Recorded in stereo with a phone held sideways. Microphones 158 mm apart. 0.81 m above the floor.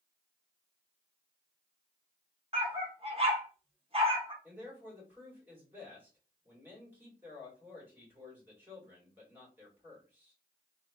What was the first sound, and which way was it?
A dog barking, 35° right (ahead or behind).